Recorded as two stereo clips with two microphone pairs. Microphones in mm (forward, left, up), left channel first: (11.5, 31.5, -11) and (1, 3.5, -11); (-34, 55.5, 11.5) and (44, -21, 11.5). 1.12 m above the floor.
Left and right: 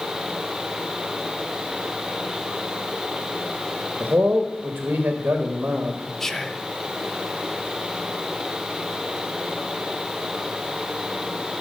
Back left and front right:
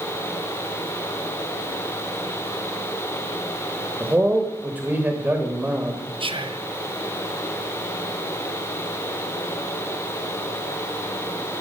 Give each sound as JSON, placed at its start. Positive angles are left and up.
{"t": 4.0, "sound": "a man speaking", "azimuth_deg": -115, "distance_m": 1.2}
{"t": 6.2, "sound": "whispering", "azimuth_deg": -5, "distance_m": 0.8}